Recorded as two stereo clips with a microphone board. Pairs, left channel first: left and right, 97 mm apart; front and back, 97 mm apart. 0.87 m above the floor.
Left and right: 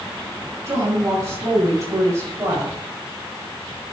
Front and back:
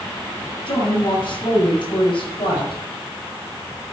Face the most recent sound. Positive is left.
turn(degrees=-30)